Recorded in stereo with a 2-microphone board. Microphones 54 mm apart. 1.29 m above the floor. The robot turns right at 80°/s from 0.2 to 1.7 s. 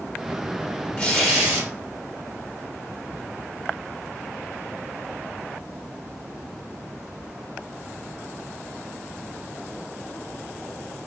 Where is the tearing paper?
160° left, 3 m; by 1.7 s 145° right, 3 m.